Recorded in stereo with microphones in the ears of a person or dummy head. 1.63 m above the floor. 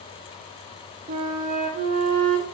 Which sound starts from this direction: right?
A flute, at 1.1 s.